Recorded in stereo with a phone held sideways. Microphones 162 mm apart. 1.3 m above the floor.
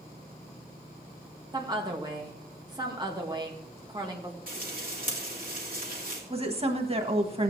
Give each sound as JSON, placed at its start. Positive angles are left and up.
{"t": 1.5, "sound": "a woman speaking", "side_deg": -25, "distance_m": 1.9}
{"t": 4.5, "sound": "frying", "side_deg": -60, "distance_m": 2.5}
{"t": 6.3, "sound": "a woman speaking", "side_deg": -35, "distance_m": 1.5}